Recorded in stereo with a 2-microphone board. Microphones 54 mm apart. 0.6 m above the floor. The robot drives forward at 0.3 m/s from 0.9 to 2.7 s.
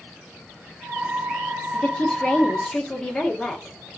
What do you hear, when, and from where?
1.7 s a woman speaking: 15° left (ahead or behind), 0.9 m; by 3.8 s 10° left (ahead or behind), 1.0 m